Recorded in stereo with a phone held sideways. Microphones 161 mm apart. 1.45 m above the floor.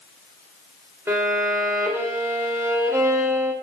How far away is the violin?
About 0.8 m.